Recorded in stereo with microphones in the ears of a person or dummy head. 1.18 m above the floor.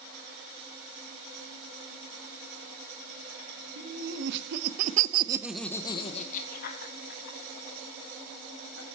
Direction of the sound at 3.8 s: 75° right (ahead or behind).